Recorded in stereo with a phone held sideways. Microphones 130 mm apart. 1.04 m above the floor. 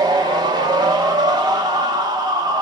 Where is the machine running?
35° right (ahead or behind), 1.0 m.